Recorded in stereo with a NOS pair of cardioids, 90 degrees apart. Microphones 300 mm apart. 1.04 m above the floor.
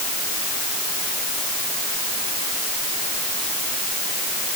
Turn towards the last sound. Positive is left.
No sound to turn to.